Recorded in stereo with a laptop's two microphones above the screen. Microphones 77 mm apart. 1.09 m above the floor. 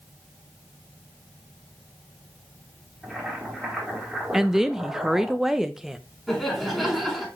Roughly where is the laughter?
Centre.